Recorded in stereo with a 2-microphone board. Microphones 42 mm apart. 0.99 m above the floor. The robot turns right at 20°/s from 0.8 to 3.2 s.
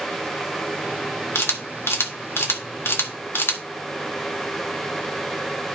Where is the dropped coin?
I don't hear a dropped coin.